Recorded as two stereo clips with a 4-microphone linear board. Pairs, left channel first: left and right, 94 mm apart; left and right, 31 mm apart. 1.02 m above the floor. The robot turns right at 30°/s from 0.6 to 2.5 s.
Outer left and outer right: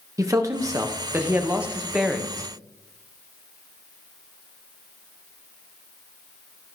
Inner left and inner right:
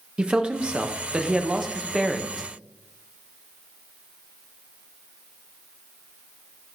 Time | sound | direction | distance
0.2 | a man speaking | 45° right | 1.0 m